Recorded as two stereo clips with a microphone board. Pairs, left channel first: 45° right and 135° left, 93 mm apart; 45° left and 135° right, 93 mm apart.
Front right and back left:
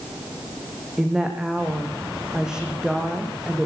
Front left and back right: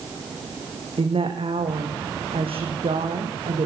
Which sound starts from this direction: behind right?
A woman speaking, at 1.0 s.